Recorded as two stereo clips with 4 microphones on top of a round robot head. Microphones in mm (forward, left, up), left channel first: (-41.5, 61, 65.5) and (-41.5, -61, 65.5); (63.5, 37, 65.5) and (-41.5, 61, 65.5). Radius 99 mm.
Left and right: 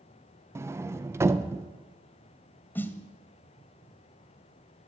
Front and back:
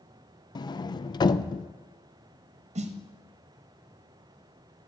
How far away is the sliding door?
About 0.6 m.